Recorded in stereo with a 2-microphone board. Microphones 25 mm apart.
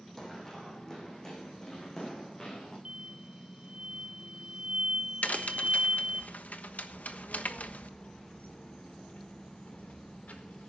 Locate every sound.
0.2 s running footsteps: 15° left (ahead or behind), 4 m; by 2.8 s 25° left (ahead or behind), 7.5 m
2.9 s an explosion: 40° right (ahead or behind), 0.7 m
5.2 s a crack: 80° left, 1.2 m
6.9 s a child speaking: 70° left (ahead or behind), 3.5 m